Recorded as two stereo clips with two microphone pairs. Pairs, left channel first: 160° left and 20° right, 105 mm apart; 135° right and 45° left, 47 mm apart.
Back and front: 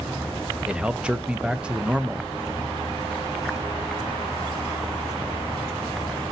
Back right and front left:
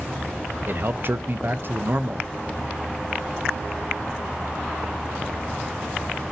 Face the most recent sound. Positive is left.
turn(degrees=55)